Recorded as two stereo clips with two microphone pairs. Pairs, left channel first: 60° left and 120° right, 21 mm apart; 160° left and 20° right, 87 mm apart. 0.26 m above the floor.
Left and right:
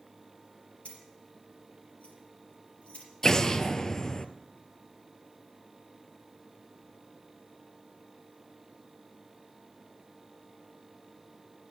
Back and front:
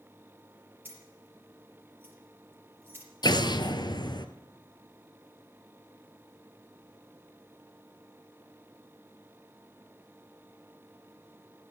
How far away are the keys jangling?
About 4.5 m.